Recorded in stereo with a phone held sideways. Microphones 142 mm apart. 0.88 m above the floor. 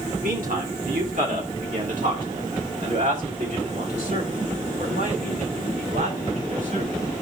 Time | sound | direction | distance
0.2 | a man speaking | 75° right (ahead or behind) | 2.5 m